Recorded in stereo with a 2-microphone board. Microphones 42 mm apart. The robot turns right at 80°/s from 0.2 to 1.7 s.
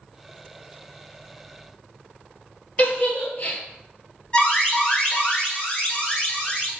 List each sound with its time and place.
2.8 s a giggle: 50° left (ahead or behind), 1.6 m
4.3 s an alarm: 30° left (ahead or behind), 1.3 m